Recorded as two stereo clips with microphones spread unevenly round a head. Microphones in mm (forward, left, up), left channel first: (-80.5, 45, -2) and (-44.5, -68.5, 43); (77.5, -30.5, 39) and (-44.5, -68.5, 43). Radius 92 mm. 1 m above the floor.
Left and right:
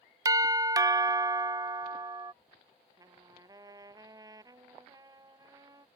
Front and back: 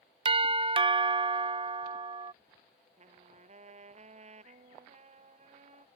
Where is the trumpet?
130° right.